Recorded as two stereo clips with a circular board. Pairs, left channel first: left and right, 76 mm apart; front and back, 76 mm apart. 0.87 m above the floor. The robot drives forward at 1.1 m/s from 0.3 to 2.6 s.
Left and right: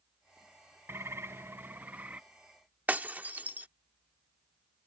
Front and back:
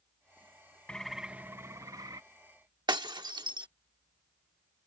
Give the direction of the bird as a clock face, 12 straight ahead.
2 o'clock.